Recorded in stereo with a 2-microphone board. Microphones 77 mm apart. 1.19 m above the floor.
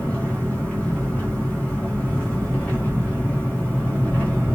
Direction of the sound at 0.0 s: 15° left (ahead or behind).